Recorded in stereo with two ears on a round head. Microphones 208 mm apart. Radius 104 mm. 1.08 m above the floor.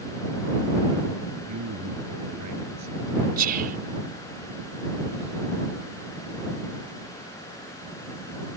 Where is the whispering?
40° right (ahead or behind).